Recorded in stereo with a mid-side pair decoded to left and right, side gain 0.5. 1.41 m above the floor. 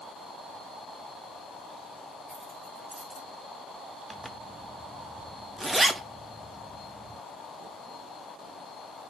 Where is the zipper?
10° right, 0.5 m.